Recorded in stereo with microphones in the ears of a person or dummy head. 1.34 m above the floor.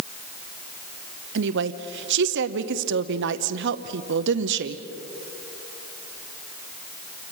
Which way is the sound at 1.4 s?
65° right (ahead or behind).